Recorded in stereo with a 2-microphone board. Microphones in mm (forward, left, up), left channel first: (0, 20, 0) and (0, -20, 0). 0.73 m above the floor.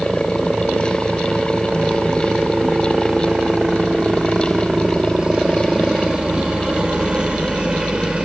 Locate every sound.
0.0 s a helicopter: 20° right (ahead or behind); by 8.3 s 25° right (ahead or behind)